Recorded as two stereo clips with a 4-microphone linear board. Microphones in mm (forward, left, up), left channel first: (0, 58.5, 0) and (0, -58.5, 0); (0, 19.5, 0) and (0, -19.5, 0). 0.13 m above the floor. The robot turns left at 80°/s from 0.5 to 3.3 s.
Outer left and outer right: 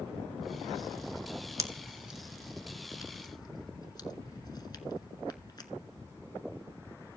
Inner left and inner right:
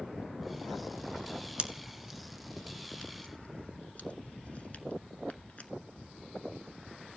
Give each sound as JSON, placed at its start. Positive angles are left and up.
{"t": 1.6, "sound": "a pop", "side_deg": -30, "distance_m": 0.8}